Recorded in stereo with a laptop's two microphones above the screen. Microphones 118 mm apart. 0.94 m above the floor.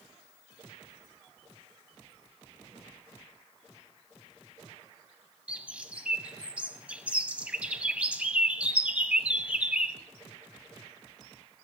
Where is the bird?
10° right (ahead or behind), 1.0 m.